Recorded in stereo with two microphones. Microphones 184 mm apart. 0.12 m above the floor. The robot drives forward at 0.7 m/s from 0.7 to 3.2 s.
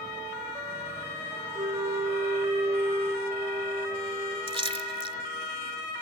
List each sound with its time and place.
1.6 s a flute: 25° right (ahead or behind), 0.9 m; by 4.4 s 15° right (ahead or behind), 1.6 m
4.5 s a splash: 30° right (ahead or behind), 0.6 m